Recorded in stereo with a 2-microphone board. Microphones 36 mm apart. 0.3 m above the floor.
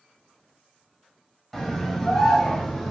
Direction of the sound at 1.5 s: 10° left (ahead or behind).